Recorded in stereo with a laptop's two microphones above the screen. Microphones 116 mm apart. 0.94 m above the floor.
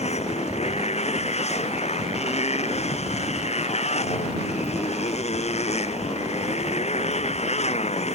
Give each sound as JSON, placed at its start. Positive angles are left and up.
{"t": 0.0, "sound": "a motorcycle", "side_deg": 65}